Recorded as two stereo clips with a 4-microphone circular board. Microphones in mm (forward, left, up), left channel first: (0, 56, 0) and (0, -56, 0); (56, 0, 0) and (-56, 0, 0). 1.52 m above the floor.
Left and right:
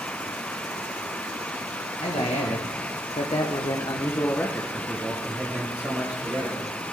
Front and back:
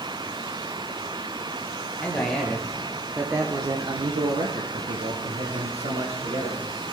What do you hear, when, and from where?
2.0 s a man speaking: 80° left, 1.2 m; by 6.7 s 160° right, 1.7 m